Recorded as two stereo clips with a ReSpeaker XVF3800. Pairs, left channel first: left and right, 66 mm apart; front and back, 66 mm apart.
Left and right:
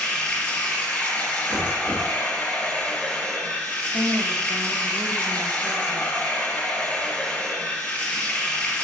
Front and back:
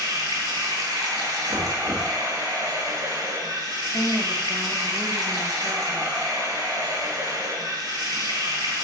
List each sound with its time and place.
0.0 s running water: 165° left, 1.6 m
1.5 s knocking: 165° right, 1.0 m
3.9 s a woman speaking: 85° right, 0.6 m